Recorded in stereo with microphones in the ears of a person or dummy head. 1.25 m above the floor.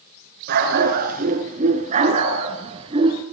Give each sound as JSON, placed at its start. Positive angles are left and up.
{"t": 0.5, "sound": "a dog barking", "side_deg": -55, "distance_m": 6.5}